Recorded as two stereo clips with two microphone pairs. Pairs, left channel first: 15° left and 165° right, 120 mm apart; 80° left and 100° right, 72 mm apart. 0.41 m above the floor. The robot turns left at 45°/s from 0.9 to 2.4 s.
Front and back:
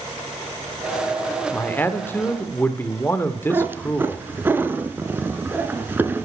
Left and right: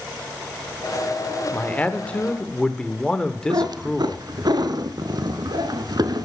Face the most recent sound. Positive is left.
turn(degrees=-85)